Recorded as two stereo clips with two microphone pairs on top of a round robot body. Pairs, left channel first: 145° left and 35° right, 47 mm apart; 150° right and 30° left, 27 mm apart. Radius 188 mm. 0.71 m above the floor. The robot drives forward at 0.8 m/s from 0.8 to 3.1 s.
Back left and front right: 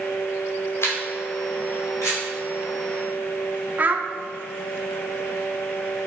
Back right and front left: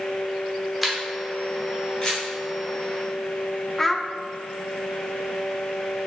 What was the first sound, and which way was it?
A camera shutter, 120° left.